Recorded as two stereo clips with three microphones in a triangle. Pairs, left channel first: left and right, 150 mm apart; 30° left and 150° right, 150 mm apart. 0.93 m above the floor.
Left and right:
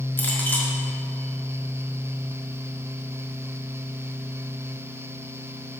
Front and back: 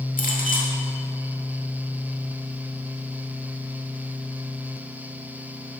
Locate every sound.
0.2 s a clink: 15° left, 1.6 m